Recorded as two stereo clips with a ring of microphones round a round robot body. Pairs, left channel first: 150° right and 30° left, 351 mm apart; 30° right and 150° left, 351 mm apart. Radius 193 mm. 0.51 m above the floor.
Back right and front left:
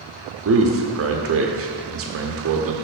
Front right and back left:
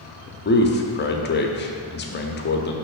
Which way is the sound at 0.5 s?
10° left.